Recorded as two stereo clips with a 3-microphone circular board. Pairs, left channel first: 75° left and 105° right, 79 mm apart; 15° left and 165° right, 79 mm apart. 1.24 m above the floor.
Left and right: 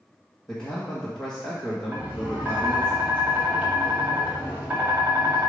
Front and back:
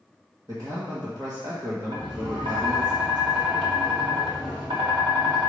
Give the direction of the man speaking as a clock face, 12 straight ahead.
7 o'clock.